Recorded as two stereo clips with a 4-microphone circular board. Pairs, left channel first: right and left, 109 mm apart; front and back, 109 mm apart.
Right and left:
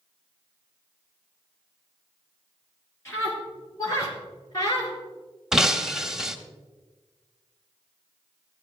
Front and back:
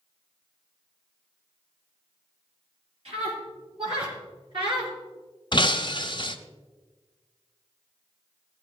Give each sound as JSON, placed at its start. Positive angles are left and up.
{"t": 3.0, "sound": "a scream", "azimuth_deg": -155, "distance_m": 5.5}
{"t": 5.5, "sound": "breaking glass", "azimuth_deg": 5, "distance_m": 0.7}